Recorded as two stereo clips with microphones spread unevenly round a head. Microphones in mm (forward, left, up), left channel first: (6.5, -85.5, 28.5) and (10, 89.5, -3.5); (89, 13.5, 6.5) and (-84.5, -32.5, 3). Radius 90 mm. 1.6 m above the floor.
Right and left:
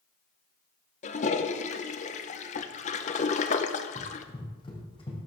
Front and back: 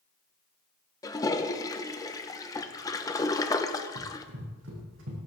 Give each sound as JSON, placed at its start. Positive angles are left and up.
{"t": 1.0, "sound": "a toilet flushing", "azimuth_deg": -55, "distance_m": 0.9}
{"t": 4.0, "sound": "running footsteps", "azimuth_deg": -155, "distance_m": 4.0}